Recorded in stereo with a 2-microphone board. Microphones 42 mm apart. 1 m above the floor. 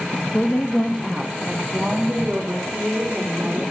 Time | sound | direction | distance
0.3 | a woman speaking | 30° left (ahead or behind) | 1.0 m